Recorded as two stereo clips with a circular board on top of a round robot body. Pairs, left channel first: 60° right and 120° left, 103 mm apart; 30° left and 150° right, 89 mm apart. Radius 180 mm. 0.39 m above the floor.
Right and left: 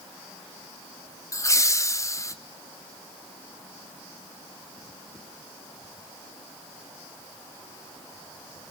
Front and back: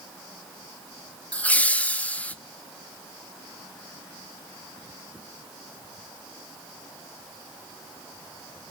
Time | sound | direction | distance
1.3 | laughter | 30° right | 0.8 m